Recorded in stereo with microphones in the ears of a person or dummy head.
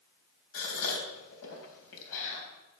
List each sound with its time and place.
0.5 s a gasp: 80° left, 4 m